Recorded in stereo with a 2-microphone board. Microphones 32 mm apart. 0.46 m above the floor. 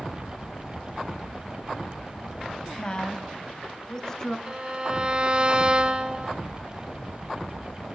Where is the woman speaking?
30° left (ahead or behind), 3 m; by 4.4 s 15° left (ahead or behind), 4.5 m.